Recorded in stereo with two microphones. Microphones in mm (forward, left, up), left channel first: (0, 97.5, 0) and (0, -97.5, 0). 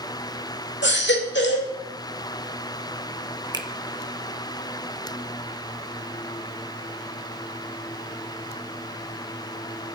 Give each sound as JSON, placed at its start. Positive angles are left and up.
{"t": 0.8, "sound": "a baby crying", "side_deg": 65, "distance_m": 2.5}
{"t": 3.5, "sound": "a finger snap", "side_deg": -20, "distance_m": 0.9}